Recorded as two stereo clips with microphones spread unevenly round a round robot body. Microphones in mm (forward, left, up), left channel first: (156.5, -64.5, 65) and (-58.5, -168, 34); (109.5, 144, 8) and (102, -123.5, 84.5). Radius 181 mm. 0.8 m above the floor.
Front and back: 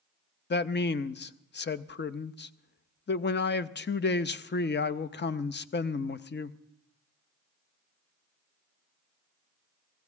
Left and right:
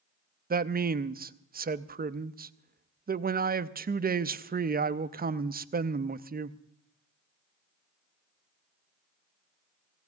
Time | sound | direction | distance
0.5 | a man speaking | 25° right | 0.7 m